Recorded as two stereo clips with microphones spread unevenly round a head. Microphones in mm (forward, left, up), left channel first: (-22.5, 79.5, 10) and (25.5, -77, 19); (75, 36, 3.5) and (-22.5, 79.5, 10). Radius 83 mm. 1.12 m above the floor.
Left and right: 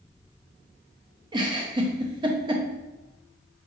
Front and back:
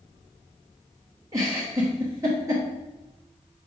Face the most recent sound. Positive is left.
turn(degrees=-135)